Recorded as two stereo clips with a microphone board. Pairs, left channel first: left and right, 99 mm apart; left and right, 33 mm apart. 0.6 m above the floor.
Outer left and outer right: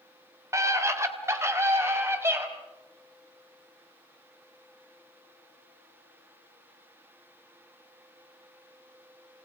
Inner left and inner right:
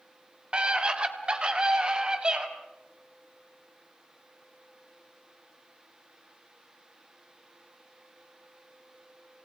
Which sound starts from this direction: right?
A scream, at 0.5 s.